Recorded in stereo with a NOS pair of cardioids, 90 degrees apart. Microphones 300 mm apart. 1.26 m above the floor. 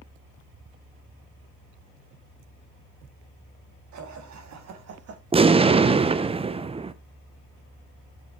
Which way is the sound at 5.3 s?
20° right.